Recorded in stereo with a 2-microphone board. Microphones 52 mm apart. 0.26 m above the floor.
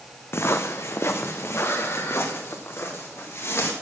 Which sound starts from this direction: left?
Footsteps, at 0.3 s.